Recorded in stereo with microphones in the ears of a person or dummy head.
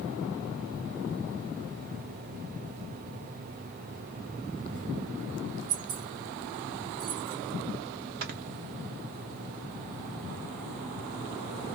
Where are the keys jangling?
35° right (ahead or behind), 2 m.